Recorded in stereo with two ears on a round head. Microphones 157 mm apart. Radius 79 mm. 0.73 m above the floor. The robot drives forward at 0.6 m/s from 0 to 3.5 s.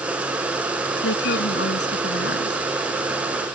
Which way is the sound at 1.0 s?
75° left (ahead or behind).